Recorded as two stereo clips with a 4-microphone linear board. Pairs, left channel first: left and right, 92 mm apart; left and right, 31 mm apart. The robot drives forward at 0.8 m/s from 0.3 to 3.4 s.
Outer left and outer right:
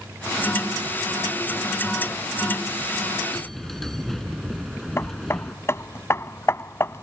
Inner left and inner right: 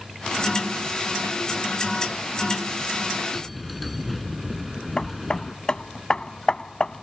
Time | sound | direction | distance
3.3 | a bell | 5° left (ahead or behind) | ?
5.0 | hammering | 30° left (ahead or behind) | ?